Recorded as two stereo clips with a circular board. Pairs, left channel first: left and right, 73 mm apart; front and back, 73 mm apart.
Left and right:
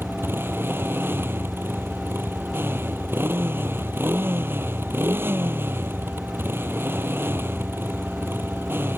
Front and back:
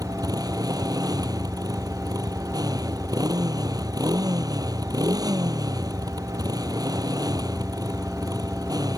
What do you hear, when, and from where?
0.0 s a motorcycle: 150° right